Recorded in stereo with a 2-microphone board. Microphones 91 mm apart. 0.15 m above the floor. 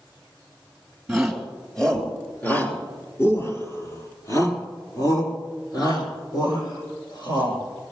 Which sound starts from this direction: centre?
A shout, at 1.1 s.